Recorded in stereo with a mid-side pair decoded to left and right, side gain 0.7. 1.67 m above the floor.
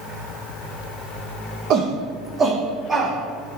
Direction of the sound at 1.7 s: 55° right.